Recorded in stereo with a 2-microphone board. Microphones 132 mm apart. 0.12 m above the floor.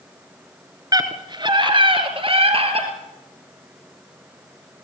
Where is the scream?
30° right (ahead or behind), 1.8 m; by 2.9 s 50° right (ahead or behind), 3 m.